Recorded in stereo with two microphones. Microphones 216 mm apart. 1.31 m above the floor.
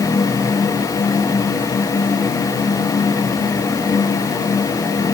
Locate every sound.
Only background noise.